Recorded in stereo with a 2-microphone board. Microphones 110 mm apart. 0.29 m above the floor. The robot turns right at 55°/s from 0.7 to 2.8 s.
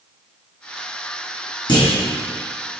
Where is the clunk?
45° left (ahead or behind), 2.5 m; by 1.9 s 55° left (ahead or behind), 2.5 m.